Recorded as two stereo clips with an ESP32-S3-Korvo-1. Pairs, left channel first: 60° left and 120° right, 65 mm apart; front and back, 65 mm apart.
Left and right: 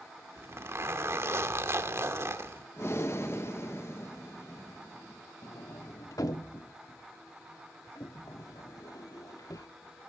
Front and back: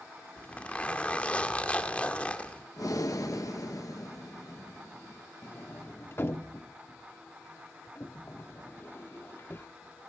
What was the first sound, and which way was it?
A zipper, 70° right.